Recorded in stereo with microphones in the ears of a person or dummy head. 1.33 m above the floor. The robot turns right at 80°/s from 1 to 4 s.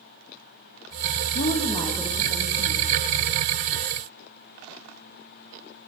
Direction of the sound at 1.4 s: 125° left.